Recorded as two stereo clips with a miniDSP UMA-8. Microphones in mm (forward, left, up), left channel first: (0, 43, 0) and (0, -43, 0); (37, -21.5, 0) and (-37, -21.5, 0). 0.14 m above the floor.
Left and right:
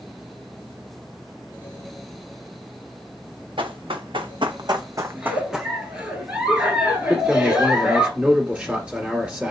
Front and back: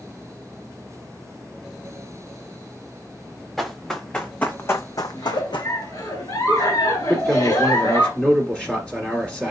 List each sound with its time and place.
3.6 s running footsteps: 90° right, 0.9 m; by 5.7 s straight ahead, 0.6 m
5.2 s a giggle: 15° right, 1.2 m
7.1 s a man speaking: 45° right, 1.5 m